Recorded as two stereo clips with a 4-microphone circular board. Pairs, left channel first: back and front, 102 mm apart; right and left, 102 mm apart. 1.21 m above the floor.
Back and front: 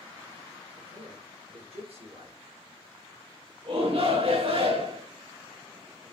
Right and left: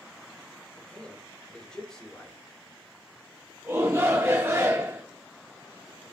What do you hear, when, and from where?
0.8 s a man speaking: 10° right, 4.5 m
3.6 s a shout: 25° left, 3.5 m